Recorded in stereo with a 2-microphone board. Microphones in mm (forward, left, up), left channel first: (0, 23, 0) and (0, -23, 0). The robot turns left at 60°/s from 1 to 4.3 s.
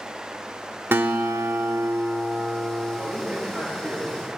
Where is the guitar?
55° right, 0.9 m; by 3.0 s 175° right, 0.9 m.